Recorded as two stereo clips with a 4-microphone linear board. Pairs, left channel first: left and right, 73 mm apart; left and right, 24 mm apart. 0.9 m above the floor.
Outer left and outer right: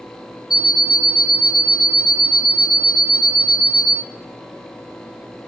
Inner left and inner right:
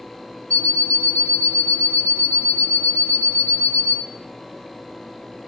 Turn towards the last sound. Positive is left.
turn(degrees=70)  # may be behind; listen again after turning